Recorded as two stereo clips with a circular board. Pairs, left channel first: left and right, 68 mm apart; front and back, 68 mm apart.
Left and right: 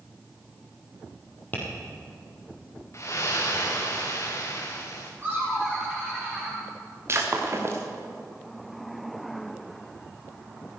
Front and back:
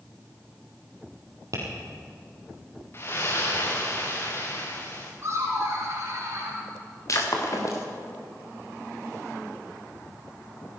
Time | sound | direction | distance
1.5 | tapping | 150° left | 3.5 m
2.9 | a splash | 45° left | 2.5 m
5.2 | laughter | 155° right | 3.5 m
7.1 | breaking glass | 40° right | 2.5 m